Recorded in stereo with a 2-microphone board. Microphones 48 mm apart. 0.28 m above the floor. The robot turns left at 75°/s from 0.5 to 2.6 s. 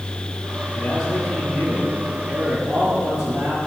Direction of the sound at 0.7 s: 125° left.